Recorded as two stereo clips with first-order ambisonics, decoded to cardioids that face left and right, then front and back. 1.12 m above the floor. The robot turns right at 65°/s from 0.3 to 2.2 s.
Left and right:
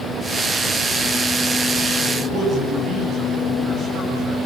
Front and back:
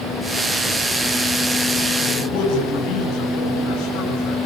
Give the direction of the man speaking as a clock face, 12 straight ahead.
1 o'clock.